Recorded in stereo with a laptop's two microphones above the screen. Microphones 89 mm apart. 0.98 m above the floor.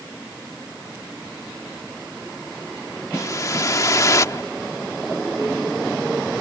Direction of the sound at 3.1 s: 35° left (ahead or behind).